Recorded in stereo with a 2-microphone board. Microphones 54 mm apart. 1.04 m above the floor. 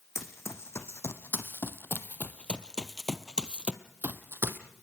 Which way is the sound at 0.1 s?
60° left (ahead or behind).